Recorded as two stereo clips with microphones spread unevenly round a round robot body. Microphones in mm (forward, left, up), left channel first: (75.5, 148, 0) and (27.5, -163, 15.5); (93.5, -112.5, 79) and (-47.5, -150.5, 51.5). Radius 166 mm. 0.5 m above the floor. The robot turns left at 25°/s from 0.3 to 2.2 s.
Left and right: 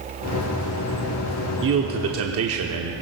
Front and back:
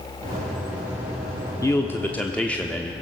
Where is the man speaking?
60° right, 1.0 m; by 2.9 s 75° right, 1.0 m.